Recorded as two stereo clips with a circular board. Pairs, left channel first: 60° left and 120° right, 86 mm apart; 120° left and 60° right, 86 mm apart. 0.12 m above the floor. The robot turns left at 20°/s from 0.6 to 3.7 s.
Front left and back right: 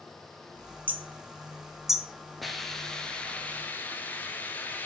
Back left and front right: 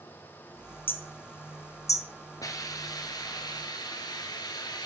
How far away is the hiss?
About 1.0 m.